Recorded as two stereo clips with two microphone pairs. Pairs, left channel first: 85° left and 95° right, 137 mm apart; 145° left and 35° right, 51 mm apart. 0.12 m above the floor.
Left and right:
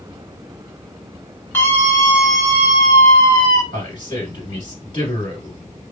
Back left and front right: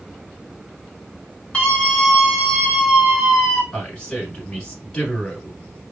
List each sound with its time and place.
1.5 s a scream: 120° left, 1.6 m; by 3.6 s 45° left, 1.9 m
3.7 s a man speaking: 85° left, 1.6 m